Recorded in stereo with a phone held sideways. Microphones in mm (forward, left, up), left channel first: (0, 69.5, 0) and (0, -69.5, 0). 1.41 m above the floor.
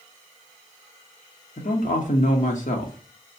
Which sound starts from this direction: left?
A man speaking, at 1.6 s.